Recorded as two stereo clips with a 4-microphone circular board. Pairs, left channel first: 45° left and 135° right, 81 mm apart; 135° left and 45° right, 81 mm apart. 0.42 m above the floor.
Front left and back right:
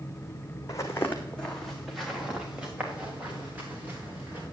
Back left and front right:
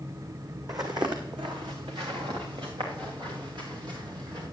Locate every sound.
0.7 s footsteps: 5° right, 1.7 m; by 4.4 s 70° right, 5 m